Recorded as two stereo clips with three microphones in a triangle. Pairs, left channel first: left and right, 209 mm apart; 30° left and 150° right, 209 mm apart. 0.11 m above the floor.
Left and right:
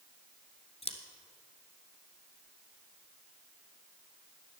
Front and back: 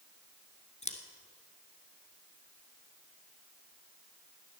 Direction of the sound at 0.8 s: 55° left.